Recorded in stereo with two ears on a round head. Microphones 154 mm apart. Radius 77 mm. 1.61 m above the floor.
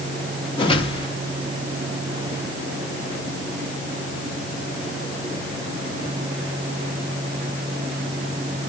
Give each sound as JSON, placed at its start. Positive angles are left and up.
{"t": 0.6, "sound": "a whoosh", "side_deg": 30, "distance_m": 2.5}